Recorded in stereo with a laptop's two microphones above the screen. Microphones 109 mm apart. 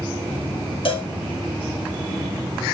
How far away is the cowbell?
About 1.8 m.